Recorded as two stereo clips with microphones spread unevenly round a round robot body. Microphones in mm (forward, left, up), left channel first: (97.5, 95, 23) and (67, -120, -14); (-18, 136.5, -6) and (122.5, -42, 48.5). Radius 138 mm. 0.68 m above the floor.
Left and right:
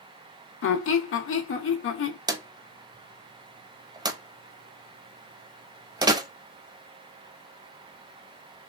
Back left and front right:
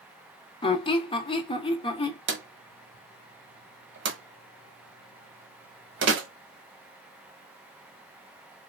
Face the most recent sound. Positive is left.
turn(degrees=-25)